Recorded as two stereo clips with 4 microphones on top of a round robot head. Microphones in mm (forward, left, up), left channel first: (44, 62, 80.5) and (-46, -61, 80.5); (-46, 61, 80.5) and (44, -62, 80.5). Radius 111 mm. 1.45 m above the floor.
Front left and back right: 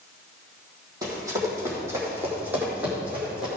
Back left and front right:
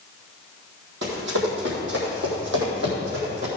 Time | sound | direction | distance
1.0 | running footsteps | 60° right | 3.5 m